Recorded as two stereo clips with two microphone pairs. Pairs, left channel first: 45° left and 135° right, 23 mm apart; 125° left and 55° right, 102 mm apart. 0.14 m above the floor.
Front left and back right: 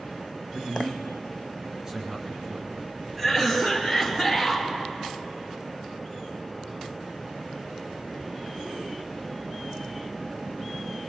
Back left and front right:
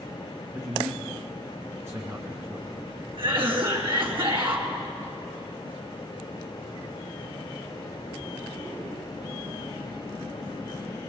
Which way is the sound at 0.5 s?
95° right.